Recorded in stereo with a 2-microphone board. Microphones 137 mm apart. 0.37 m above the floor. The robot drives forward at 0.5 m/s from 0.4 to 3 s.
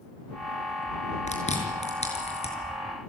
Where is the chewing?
55° left (ahead or behind), 5.5 m; by 2.5 s 50° left (ahead or behind), 6 m.